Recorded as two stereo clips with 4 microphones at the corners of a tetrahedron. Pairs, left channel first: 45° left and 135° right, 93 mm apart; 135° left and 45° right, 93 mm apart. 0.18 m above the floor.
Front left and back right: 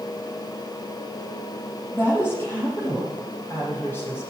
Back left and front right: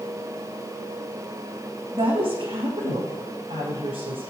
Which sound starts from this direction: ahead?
A woman speaking, at 1.9 s.